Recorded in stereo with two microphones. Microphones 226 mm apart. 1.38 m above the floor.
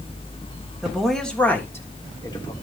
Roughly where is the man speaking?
Centre.